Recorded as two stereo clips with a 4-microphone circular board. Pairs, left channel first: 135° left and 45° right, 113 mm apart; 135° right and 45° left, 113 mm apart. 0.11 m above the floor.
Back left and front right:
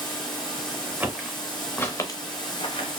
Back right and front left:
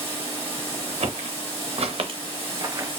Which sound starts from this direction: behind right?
Running water, at 0.0 s.